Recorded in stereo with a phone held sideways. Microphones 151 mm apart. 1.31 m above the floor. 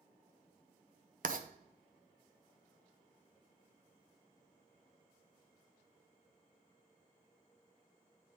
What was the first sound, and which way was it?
Writing, 65° right (ahead or behind).